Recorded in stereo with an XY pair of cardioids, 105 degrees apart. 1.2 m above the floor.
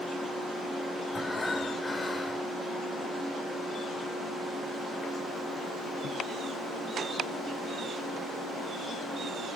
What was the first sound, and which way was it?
Breathing, 25° left.